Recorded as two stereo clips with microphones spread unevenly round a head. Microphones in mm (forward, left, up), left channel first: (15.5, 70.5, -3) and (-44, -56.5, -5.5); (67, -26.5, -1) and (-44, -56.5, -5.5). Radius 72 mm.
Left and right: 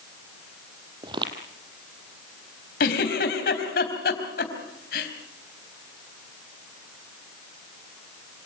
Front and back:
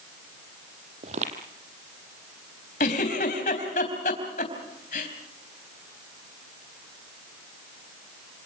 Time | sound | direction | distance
1.0 | footsteps | 170° right | 2.5 m
2.8 | a giggle | 45° left | 3.5 m